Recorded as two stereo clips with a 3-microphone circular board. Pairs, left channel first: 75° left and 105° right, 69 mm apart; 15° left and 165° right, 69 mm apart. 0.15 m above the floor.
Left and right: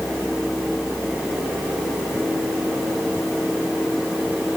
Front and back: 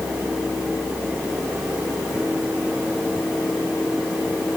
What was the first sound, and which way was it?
Only background noise.